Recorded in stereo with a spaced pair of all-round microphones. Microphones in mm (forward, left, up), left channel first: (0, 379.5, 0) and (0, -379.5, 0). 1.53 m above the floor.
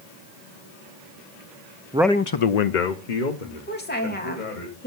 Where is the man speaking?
10° right (ahead or behind), 0.8 m; by 4.7 s 70° left (ahead or behind), 3.5 m.